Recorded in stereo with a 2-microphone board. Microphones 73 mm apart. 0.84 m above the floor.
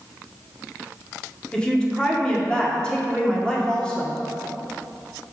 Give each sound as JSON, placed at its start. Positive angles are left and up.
{"t": 1.5, "sound": "a woman speaking", "side_deg": 15, "distance_m": 1.7}